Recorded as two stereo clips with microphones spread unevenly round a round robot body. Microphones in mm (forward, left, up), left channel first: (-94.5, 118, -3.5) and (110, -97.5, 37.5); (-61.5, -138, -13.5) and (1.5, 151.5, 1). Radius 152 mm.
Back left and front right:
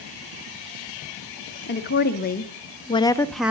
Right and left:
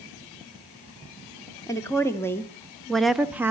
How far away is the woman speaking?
About 1.6 m.